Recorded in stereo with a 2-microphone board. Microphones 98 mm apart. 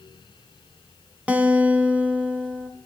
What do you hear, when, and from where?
1.3 s a guitar: 15° right (ahead or behind), 0.5 m